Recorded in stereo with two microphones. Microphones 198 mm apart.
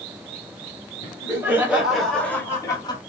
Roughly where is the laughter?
Centre.